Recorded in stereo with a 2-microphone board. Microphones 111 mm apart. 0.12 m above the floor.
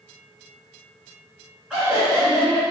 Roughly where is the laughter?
Centre.